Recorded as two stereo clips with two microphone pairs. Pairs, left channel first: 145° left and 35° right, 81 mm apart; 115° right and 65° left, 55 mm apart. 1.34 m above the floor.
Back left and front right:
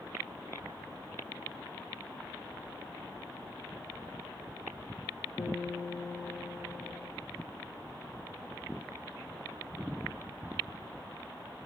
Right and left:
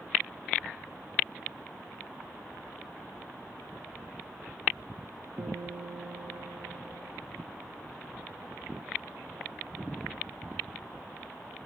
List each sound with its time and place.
5.4 s a guitar: 95° left, 1.8 m